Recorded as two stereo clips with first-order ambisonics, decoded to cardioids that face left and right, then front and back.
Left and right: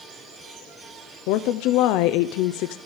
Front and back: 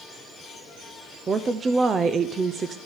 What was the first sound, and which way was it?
A woman speaking, 110° left.